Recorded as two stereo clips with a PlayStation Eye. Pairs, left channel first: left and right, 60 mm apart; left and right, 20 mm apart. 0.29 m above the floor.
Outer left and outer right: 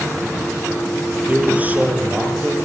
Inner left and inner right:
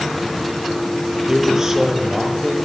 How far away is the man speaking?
About 6 m.